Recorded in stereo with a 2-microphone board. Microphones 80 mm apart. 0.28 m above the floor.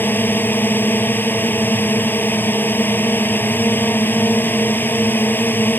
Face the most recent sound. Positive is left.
turn(degrees=25)  # may be behind; listen again after turning